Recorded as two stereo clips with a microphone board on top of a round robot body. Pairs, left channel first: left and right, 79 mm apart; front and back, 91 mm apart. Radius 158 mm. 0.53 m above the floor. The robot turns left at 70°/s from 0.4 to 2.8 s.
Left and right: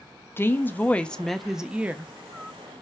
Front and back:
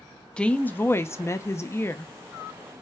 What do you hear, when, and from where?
0.4 s a woman speaking: 70° left, 0.7 m; by 2.1 s 50° right, 0.7 m